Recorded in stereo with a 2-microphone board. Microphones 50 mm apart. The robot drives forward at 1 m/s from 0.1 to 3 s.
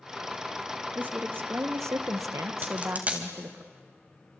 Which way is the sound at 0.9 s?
35° right (ahead or behind).